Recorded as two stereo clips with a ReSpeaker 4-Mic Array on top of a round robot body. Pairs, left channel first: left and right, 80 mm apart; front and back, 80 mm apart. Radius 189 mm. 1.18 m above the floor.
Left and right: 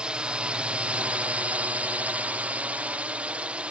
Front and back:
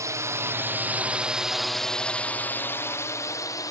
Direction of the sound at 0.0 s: 165° right.